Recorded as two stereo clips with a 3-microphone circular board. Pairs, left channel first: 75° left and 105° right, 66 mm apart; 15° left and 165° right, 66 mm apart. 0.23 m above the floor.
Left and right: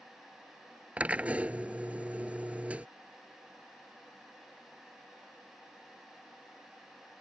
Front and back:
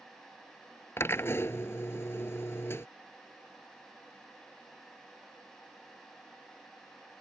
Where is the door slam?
I don't hear a door slam.